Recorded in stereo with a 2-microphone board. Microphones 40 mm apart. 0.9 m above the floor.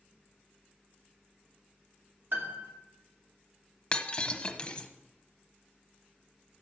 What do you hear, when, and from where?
2.3 s a piano: 65° right (ahead or behind), 2.5 m
3.9 s breaking glass: 25° left (ahead or behind), 1.0 m